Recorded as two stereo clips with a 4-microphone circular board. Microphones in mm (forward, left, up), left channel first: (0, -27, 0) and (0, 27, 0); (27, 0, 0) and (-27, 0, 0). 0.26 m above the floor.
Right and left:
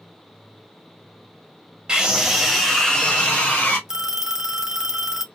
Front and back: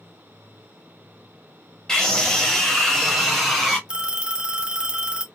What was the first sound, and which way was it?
A scream, 50° left.